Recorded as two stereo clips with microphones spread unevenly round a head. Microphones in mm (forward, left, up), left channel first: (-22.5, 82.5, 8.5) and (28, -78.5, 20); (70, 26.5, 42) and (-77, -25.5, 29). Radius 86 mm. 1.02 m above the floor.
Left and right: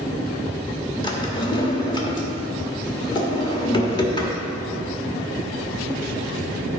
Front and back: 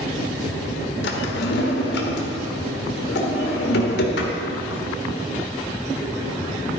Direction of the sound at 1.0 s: 40° left.